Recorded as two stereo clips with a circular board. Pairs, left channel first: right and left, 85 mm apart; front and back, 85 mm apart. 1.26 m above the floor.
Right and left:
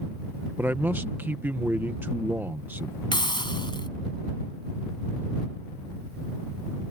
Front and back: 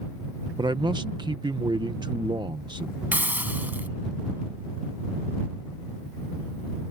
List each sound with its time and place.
0.6 s a man speaking: 155° left
3.1 s a hiss: 110° right